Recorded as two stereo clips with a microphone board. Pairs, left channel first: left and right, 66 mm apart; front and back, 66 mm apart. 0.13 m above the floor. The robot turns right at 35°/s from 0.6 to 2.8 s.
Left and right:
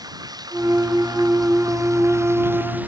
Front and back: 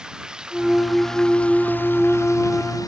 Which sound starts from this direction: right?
Running water, at 0.0 s.